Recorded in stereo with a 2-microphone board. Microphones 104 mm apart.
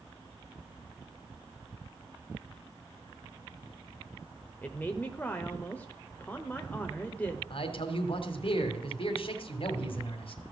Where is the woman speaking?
15° left (ahead or behind), 0.9 m.